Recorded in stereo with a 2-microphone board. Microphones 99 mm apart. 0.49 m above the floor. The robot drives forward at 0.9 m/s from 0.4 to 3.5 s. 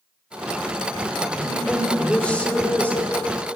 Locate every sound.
1.3 s a woman speaking: 10° left (ahead or behind), 2.5 m; by 3.0 s 15° left (ahead or behind), 1.3 m